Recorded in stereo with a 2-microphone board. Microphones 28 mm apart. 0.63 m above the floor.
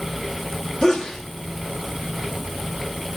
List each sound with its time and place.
0.8 s a sneeze: 25° left (ahead or behind), 1.3 m